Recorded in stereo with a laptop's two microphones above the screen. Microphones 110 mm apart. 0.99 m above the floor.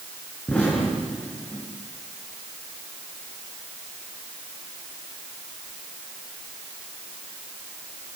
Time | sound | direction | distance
0.5 | an explosion | 10° left (ahead or behind) | 6.5 m